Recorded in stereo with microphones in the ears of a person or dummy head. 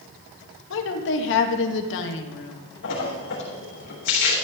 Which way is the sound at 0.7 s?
65° left (ahead or behind).